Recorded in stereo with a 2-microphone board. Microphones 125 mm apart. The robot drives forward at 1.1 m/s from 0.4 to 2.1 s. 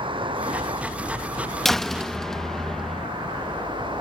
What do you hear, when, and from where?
0.0 s a vehicle: 40° right (ahead or behind)
1.6 s a door slam: centre (ahead or behind); by 3.1 s 5° left (ahead or behind)